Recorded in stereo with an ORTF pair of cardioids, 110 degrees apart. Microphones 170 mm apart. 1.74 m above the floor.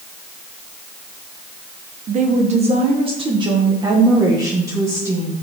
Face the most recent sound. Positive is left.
turn(degrees=-15)